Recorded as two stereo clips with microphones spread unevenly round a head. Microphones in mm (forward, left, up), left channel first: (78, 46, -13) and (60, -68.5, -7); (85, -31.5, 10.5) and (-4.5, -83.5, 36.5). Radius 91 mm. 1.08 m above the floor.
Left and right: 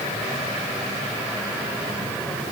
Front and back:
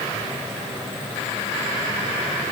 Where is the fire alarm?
I don't hear a fire alarm.